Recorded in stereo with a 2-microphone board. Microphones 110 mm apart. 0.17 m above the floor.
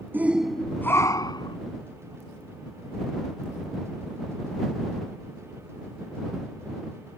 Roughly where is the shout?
Centre.